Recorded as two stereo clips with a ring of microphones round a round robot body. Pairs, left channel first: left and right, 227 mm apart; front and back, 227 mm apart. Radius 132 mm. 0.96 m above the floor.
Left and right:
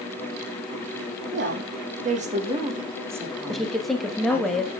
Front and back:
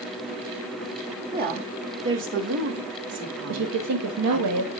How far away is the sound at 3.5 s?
About 1.2 m.